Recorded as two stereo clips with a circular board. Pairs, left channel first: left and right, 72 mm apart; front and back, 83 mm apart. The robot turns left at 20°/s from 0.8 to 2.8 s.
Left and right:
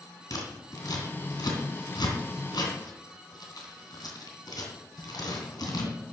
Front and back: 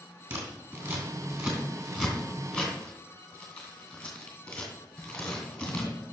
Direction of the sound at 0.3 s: 125° left.